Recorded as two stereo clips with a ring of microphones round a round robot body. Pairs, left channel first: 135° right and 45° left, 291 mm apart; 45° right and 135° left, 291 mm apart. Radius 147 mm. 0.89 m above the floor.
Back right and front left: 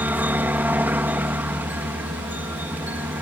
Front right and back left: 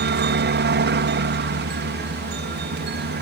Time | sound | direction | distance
0.0 | a helicopter | 125° left | ?